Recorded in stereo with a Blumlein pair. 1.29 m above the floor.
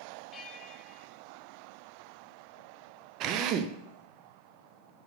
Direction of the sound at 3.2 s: 35° right.